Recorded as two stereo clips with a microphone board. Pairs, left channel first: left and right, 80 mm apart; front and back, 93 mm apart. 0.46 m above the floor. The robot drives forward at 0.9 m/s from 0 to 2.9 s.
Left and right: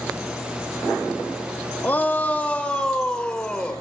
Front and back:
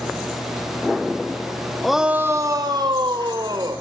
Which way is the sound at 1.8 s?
80° left.